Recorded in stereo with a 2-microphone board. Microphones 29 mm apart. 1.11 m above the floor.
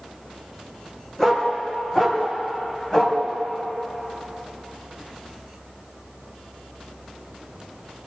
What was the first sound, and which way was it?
A dog barking, 25° left (ahead or behind).